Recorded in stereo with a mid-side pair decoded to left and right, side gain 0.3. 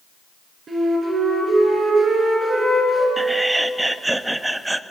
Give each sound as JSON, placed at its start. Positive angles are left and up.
{"t": 0.7, "sound": "a flute", "azimuth_deg": -65, "distance_m": 7.0}
{"t": 3.2, "sound": "laughter", "azimuth_deg": -20, "distance_m": 1.4}